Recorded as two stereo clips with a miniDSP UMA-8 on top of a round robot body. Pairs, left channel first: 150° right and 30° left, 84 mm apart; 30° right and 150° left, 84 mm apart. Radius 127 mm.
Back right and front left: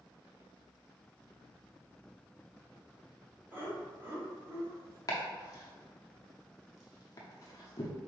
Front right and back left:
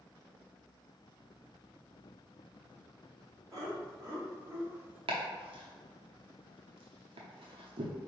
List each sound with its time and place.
3.5 s laughter: 100° left, 1.7 m; by 5.0 s 80° left, 1.0 m
5.1 s chopping: 160° left, 0.6 m